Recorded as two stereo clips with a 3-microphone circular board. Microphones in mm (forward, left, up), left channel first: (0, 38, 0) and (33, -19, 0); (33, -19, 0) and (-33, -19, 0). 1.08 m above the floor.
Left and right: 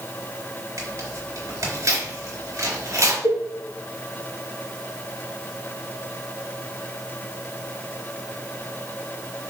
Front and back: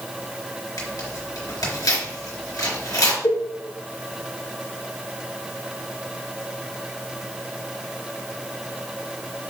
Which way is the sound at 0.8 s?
20° right.